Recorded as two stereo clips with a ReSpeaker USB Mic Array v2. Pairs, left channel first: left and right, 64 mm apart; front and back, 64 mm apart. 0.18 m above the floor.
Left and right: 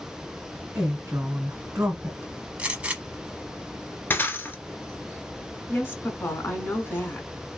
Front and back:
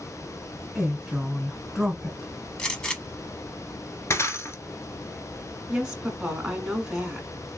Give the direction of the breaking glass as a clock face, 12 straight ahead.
11 o'clock.